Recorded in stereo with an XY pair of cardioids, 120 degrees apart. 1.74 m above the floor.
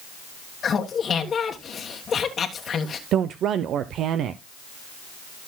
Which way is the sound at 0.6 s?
40° left.